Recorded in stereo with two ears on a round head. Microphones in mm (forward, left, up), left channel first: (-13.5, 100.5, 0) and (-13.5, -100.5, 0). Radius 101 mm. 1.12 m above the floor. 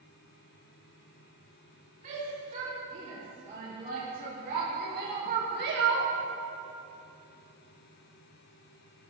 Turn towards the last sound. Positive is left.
turn(degrees=-55)  # may be behind; listen again after turning